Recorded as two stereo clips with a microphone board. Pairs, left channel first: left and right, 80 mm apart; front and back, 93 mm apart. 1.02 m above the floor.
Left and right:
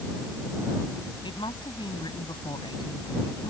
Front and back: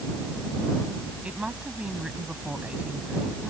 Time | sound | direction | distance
1.2 | a woman speaking | 100° left | ?